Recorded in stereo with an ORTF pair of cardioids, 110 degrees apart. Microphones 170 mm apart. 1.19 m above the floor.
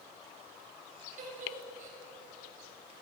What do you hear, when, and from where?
1.2 s a giggle: 50° right, 8 m